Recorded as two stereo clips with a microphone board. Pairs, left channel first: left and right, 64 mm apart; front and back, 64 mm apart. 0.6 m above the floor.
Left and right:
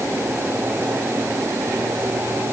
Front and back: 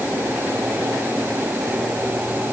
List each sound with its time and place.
Only background noise.